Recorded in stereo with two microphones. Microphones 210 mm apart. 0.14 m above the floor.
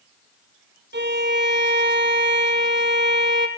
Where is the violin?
60° right (ahead or behind), 1.0 m.